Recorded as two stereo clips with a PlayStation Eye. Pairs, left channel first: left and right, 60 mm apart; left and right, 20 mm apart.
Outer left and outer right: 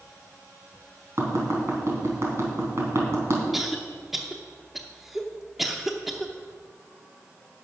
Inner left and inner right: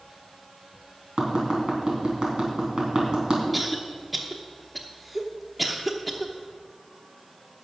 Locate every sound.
1.2 s tapping: 50° right (ahead or behind), 4 m
3.5 s a cough: 5° right (ahead or behind), 0.7 m